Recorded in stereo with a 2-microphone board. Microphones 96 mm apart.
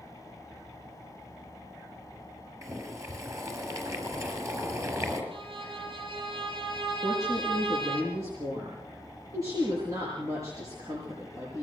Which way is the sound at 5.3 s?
65° right (ahead or behind).